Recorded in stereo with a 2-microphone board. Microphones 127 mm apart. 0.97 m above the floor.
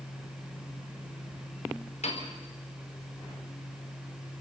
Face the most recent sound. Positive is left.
turn(degrees=65)  # may be behind; listen again after turning